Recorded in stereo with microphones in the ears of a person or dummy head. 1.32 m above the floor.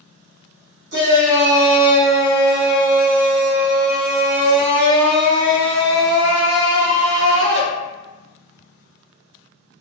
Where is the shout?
55° right (ahead or behind), 0.8 m.